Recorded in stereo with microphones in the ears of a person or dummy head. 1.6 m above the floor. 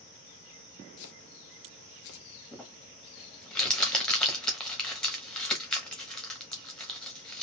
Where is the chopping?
65° left (ahead or behind), 0.8 m.